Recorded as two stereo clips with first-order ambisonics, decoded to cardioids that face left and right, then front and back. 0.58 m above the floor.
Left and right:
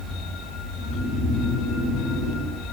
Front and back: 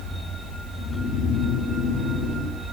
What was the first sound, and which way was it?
Snoring, 40° left.